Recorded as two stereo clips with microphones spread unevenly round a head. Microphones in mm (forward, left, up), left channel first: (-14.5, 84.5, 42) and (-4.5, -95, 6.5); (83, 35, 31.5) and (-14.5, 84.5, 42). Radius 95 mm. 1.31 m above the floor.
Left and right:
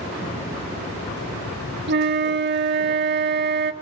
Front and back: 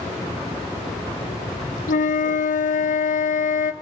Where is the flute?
45° right, 1.8 m.